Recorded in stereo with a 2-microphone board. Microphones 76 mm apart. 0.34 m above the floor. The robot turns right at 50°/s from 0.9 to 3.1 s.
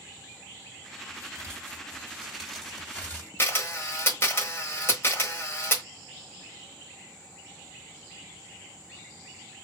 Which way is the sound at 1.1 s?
70° right.